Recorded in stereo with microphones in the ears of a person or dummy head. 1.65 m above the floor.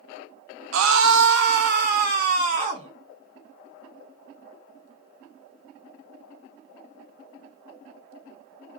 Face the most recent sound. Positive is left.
turn(degrees=-35)  # may be behind; listen again after turning